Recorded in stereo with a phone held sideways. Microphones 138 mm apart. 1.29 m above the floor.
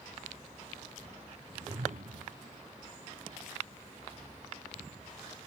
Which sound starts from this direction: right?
A whoosh, at 1.5 s.